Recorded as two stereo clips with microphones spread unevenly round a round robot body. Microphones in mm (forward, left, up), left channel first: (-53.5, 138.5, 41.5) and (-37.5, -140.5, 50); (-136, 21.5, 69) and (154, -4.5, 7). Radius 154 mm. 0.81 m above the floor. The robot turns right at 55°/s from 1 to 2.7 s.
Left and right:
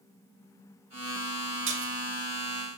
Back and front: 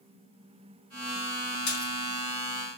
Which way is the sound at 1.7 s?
135° right.